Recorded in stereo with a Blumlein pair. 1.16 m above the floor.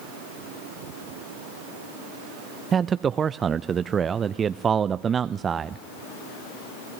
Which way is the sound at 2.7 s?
20° right.